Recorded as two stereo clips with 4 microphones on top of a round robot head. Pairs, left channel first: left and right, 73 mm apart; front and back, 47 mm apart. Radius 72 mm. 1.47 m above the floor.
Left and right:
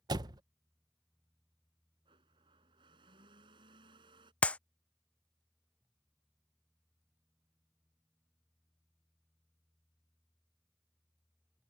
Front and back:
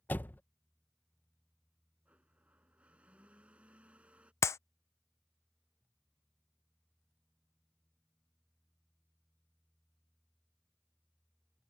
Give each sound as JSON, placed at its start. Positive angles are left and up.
{"t": 0.1, "sound": "a door slam", "azimuth_deg": -60}
{"t": 2.0, "sound": "a blender", "azimuth_deg": -110}
{"t": 4.4, "sound": "a clap", "azimuth_deg": 20}